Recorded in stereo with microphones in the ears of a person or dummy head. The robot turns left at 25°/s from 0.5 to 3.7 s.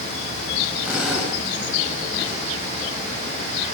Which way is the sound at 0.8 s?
10° right (ahead or behind).